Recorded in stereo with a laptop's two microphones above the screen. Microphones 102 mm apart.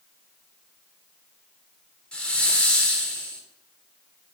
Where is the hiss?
10° left (ahead or behind), 3.5 m.